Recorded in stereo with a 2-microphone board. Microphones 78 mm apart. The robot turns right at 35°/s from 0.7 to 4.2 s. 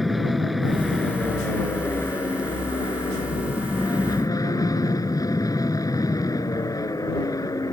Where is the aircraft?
Straight ahead; by 7.7 s 120° left.